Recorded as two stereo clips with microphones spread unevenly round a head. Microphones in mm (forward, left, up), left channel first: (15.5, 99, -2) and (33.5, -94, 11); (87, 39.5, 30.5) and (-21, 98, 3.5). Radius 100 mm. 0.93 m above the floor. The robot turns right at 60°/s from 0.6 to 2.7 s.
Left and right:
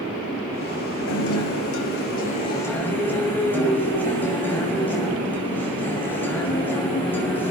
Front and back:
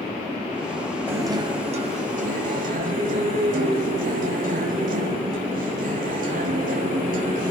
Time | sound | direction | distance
1.1 | a guitar | 80° left | 5.5 m